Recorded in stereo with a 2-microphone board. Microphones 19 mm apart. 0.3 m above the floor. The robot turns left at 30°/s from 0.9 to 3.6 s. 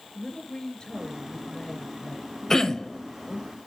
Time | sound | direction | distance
0.1 | a woman speaking | 145° left | 4.5 m
2.5 | throat clearing | 30° left (ahead or behind) | 1.1 m